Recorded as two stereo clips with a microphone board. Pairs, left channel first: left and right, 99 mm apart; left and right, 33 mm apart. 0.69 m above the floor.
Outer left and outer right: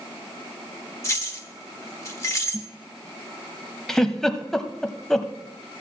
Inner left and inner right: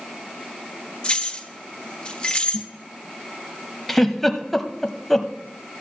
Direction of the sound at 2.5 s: 10° right (ahead or behind).